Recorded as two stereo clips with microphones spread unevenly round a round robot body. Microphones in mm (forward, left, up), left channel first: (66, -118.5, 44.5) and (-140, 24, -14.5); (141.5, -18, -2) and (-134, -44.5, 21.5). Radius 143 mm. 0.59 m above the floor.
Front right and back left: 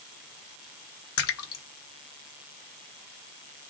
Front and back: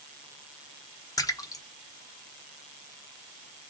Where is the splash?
65° right, 1.0 m.